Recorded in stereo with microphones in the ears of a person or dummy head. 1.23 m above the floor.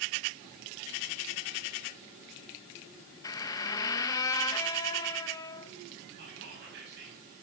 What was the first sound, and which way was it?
A squeak, 20° left (ahead or behind).